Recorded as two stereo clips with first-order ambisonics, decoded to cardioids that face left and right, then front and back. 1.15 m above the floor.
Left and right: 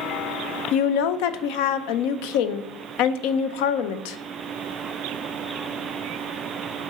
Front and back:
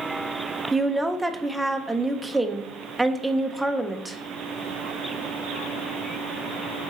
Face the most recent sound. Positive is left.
turn(degrees=95)